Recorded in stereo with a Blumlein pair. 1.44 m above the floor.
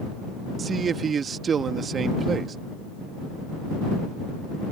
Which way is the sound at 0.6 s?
20° right.